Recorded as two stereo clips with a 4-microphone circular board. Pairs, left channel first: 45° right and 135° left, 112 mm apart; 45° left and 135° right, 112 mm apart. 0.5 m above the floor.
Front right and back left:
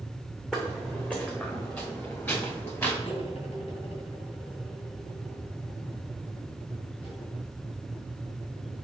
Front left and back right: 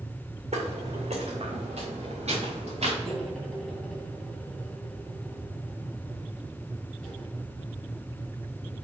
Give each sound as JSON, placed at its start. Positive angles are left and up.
{"t": 0.5, "sound": "footsteps", "azimuth_deg": -130, "distance_m": 2.5}
{"t": 3.0, "sound": "cutlery clinking", "azimuth_deg": -40, "distance_m": 2.5}